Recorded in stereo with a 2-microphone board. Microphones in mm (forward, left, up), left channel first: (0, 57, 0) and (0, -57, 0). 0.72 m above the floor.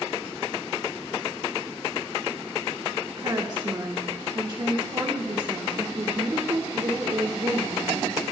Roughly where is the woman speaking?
Right.